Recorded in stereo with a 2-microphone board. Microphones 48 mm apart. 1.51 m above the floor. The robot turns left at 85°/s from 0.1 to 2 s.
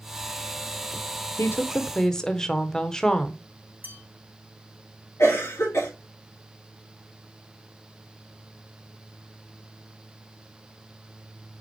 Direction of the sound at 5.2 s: 85° left.